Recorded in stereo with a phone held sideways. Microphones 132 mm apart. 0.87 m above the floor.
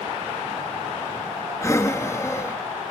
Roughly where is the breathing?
Left.